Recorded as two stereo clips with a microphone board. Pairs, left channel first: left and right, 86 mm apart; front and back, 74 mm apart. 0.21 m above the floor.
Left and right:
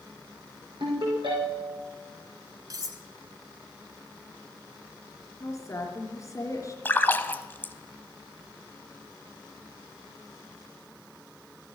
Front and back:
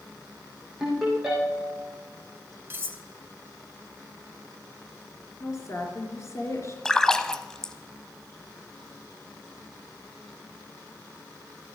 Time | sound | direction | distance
0.8 | a ringtone | 95° right | 5.5 m
2.7 | cutlery clinking | 125° right | 1.2 m
5.4 | a woman speaking | 40° left | 3.5 m
6.8 | a splash | 70° left | 0.6 m